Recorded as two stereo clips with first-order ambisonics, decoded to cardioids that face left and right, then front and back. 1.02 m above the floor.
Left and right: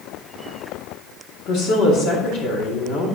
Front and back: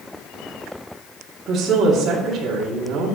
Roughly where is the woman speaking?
Behind left.